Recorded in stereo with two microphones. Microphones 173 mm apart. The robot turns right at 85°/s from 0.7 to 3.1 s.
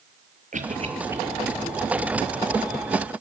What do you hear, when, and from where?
0.5 s a cough: 50° right (ahead or behind), 6.5 m; by 1.2 s 10° right (ahead or behind), 6.5 m